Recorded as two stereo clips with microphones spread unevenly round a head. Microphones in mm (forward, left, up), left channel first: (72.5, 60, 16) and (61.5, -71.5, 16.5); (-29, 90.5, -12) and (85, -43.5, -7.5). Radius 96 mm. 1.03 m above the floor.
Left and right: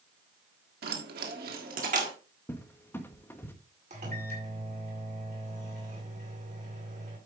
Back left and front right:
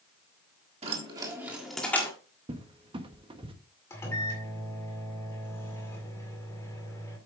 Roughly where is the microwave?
Behind right.